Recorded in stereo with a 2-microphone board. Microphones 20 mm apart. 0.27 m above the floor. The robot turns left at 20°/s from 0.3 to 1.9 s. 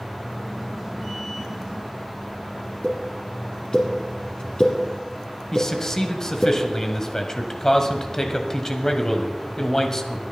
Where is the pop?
40° left (ahead or behind), 2.5 m.